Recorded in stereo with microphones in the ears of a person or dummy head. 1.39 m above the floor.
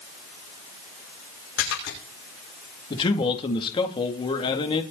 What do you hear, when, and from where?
1.6 s a splash: 70° left (ahead or behind), 6 m
2.9 s a man speaking: 25° left (ahead or behind), 3 m